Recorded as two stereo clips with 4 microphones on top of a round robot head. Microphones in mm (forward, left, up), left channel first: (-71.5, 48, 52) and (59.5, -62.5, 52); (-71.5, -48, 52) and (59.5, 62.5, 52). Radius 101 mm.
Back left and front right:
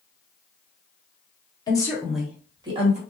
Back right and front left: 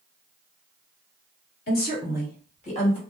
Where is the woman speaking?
155° right, 1.4 m; by 3.0 s 85° right, 1.4 m.